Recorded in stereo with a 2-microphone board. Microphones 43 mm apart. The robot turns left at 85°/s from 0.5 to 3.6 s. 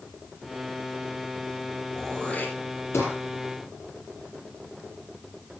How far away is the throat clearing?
About 7 m.